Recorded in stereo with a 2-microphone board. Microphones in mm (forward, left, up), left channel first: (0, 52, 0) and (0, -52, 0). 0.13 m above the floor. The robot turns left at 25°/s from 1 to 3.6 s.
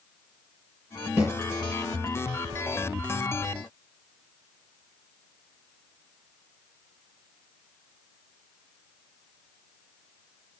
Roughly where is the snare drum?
Right.